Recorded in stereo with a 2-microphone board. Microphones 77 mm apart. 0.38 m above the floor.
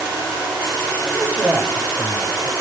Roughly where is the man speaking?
Centre.